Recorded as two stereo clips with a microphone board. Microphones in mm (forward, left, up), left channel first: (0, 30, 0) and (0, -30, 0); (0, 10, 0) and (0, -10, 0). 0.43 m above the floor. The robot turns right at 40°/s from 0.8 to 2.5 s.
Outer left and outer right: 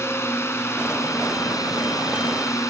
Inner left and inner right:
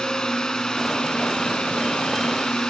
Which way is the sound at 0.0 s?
50° left.